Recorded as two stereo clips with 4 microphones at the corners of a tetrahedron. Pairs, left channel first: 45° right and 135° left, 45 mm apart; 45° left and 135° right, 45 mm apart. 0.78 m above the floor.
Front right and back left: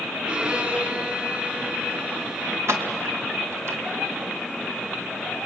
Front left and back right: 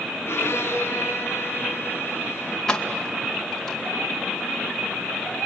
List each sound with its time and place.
0.2 s a violin: 75° left, 5 m
2.7 s keys jangling: 125° left, 2.5 m